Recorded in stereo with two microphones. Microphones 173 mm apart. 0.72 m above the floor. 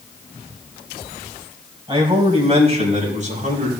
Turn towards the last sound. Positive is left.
turn(degrees=-50)  # may be behind; listen again after turning